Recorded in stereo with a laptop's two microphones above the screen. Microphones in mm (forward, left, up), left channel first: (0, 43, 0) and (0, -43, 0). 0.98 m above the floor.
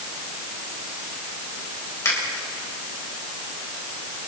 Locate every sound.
2.0 s a finger snap: 35° left (ahead or behind), 3.5 m